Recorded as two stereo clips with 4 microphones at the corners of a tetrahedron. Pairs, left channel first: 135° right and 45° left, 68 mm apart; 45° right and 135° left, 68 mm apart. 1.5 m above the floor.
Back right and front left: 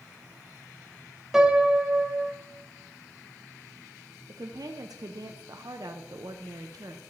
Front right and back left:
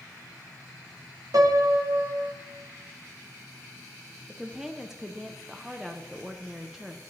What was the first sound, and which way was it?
A piano, 125° left.